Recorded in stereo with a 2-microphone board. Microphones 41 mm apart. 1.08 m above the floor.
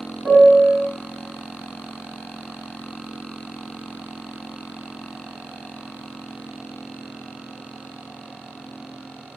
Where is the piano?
55° right (ahead or behind), 1.6 m.